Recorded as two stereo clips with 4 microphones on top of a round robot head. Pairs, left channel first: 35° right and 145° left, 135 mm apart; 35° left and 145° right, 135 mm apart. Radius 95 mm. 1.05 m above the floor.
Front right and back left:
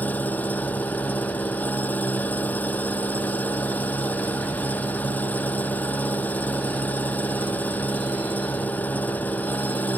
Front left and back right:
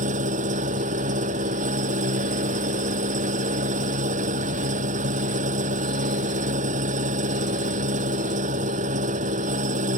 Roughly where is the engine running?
Right.